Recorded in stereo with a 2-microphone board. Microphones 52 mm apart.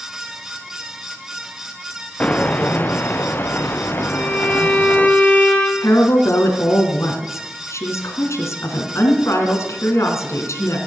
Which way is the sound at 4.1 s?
20° left (ahead or behind).